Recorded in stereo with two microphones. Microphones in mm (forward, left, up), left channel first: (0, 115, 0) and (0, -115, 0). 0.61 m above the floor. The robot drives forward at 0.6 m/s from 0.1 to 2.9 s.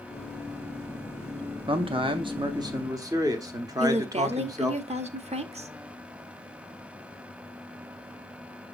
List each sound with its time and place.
1.7 s a man speaking: 25° right (ahead or behind), 0.6 m; by 4.8 s 15° right (ahead or behind), 0.9 m
3.8 s a woman speaking: 30° right (ahead or behind), 0.7 m